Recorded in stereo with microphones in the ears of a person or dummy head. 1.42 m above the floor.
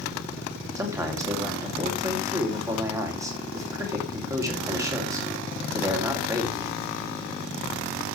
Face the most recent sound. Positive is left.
turn(degrees=-15)  # may be behind; listen again after turning